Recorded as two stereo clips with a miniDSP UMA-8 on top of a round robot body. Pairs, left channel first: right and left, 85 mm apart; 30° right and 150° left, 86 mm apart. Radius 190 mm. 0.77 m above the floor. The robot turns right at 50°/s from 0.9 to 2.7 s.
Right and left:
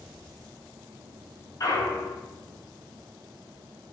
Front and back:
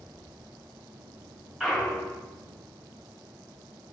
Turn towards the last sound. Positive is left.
turn(degrees=-75)